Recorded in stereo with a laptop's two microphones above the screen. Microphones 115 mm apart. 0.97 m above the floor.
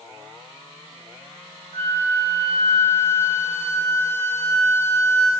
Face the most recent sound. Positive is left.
turn(degrees=-55)  # may be behind; listen again after turning